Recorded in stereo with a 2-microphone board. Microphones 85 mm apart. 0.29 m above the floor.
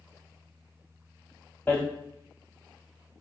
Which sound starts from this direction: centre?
Hammering, at 1.7 s.